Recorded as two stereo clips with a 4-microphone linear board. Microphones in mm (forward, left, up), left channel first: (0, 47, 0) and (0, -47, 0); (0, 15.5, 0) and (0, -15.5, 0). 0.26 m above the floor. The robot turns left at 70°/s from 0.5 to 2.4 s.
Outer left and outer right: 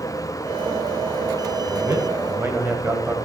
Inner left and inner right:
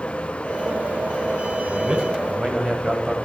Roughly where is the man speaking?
Right.